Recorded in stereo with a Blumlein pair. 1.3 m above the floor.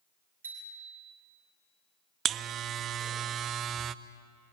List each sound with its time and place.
0.4 s a bicycle bell: 70° right, 8 m
2.2 s a buzzer: 30° right, 0.7 m